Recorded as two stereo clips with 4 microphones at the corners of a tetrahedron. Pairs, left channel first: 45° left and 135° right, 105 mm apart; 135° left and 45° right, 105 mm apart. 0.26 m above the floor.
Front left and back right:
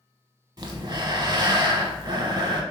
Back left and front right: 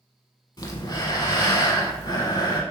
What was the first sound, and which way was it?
Breathing, straight behind.